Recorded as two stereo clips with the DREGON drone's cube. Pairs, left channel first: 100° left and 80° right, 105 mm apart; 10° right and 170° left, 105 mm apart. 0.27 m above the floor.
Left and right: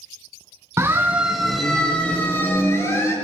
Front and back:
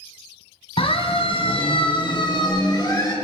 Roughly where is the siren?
Ahead.